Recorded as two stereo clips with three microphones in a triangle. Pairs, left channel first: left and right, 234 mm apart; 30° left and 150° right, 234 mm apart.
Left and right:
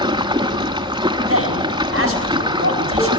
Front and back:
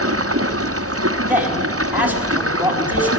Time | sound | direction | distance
0.0 | running water | 165° right | 1.4 m
1.3 | a man speaking | 70° right | 5 m